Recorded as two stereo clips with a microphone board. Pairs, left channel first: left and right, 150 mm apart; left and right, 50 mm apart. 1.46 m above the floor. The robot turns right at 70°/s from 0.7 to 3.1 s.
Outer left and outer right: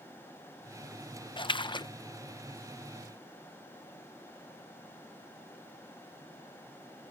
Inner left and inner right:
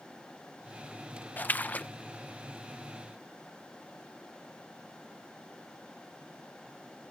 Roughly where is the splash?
Left.